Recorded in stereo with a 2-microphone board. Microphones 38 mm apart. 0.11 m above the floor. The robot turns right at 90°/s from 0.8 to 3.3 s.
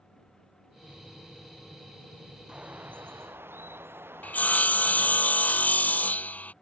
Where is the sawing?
45° left (ahead or behind).